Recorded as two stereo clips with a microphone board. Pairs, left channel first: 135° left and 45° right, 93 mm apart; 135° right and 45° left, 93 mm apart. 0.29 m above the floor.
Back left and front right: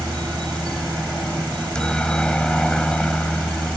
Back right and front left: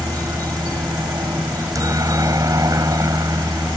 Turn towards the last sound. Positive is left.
turn(degrees=60)